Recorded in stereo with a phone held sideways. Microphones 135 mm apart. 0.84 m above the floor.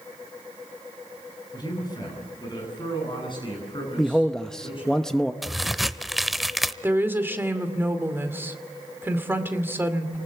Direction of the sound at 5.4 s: Centre (ahead or behind).